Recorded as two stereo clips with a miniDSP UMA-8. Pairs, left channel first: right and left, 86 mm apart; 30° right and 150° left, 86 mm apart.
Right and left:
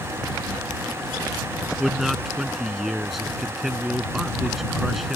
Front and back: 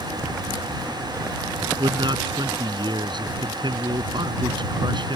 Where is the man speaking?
Straight behind.